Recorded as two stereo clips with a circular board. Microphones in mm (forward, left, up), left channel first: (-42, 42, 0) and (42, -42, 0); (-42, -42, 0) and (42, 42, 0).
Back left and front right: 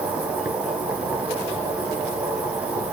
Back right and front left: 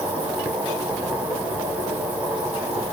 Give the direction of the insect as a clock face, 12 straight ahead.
12 o'clock.